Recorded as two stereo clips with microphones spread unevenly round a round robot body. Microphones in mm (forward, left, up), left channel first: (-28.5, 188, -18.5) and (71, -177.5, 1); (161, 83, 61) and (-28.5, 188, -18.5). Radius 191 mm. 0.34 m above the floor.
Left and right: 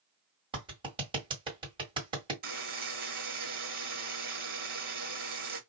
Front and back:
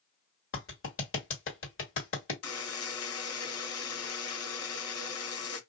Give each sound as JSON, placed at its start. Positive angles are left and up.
{"t": 0.5, "sound": "a clap", "azimuth_deg": 0, "distance_m": 1.8}
{"t": 2.4, "sound": "a buzzer", "azimuth_deg": -10, "distance_m": 1.2}